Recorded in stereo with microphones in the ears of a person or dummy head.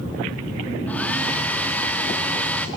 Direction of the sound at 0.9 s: 5° left (ahead or behind).